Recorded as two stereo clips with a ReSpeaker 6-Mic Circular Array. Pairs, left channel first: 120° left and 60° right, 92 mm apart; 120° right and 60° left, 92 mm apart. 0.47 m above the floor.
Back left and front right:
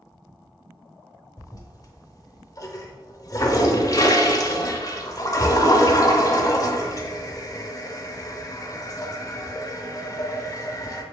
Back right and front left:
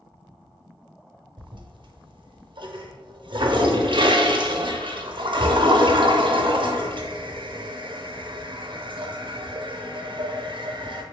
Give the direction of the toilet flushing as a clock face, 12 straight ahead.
10 o'clock.